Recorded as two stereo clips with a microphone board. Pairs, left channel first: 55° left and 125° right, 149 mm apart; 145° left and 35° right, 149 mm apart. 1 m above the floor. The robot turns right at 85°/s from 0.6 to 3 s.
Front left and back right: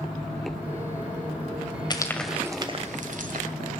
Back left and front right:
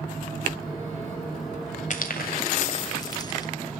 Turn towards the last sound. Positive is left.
turn(degrees=-150)